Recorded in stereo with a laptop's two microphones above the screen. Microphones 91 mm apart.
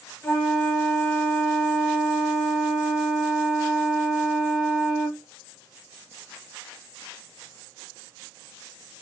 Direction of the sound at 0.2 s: 30° left (ahead or behind).